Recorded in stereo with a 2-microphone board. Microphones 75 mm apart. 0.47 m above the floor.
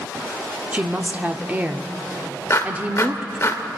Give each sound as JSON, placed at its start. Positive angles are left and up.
{"t": 0.7, "sound": "a woman speaking", "side_deg": -20, "distance_m": 0.7}
{"t": 2.5, "sound": "a clap", "side_deg": 35, "distance_m": 1.0}